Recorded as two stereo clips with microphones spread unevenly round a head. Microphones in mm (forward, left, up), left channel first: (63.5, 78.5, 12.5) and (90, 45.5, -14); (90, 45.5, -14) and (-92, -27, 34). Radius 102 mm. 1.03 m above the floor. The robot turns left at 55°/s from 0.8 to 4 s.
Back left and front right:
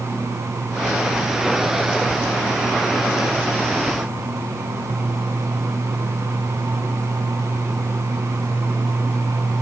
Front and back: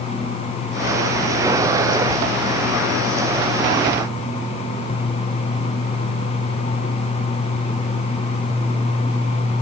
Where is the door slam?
I don't hear a door slam.